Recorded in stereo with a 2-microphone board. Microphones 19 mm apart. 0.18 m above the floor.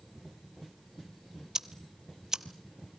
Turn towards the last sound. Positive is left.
turn(degrees=-30)  # may be behind; listen again after turning